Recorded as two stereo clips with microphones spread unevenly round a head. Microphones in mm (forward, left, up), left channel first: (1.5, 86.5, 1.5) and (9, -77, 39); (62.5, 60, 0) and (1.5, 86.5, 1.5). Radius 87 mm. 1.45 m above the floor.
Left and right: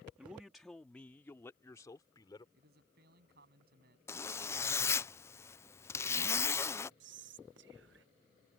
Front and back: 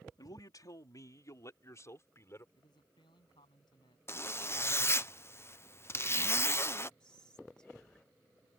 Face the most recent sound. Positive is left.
turn(degrees=-110)